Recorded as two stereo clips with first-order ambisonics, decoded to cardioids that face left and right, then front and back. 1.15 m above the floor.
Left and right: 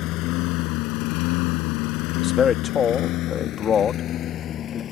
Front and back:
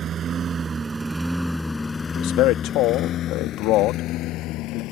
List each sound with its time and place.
0.0 s a lawn mower: 120° left; by 4.9 s 35° left
2.1 s a man speaking: 30° left